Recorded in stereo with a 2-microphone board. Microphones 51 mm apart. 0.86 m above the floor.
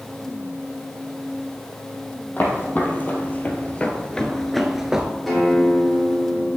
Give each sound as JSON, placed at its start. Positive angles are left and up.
{"t": 2.4, "sound": "footsteps", "side_deg": 40, "distance_m": 1.9}
{"t": 5.3, "sound": "a guitar", "side_deg": 0, "distance_m": 2.5}